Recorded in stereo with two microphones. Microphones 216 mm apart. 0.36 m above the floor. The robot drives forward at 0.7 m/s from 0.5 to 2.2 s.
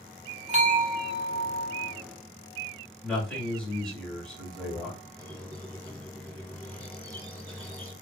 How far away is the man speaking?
About 1.5 m.